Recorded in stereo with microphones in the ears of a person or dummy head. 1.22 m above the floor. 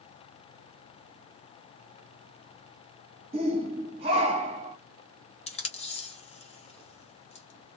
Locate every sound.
3.3 s a shout: 30° right (ahead or behind), 0.8 m
5.5 s tape being pulled: 30° left (ahead or behind), 0.8 m